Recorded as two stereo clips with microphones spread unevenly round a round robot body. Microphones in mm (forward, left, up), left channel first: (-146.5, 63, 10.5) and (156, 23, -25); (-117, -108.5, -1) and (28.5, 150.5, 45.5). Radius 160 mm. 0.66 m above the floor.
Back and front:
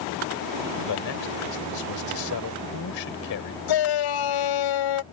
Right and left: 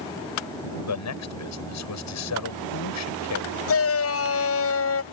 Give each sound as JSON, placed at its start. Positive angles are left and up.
{"t": 0.8, "sound": "a man speaking", "azimuth_deg": -150}
{"t": 3.7, "sound": "a shout", "azimuth_deg": -160}